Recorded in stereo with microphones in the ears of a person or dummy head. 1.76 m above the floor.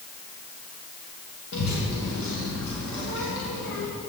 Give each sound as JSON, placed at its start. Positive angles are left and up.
{"t": 1.5, "sound": "a child speaking", "side_deg": 70, "distance_m": 1.3}